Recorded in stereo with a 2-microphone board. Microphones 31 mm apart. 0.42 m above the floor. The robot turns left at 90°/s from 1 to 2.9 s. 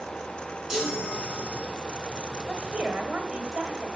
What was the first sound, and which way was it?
A chime, 20° right.